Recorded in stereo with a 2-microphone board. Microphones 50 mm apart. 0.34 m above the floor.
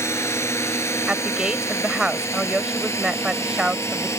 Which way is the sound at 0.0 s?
65° left (ahead or behind).